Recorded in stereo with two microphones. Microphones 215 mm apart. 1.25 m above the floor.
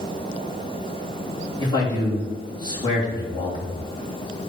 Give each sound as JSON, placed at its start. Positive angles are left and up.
{"t": 1.6, "sound": "a man speaking", "side_deg": 20, "distance_m": 3.0}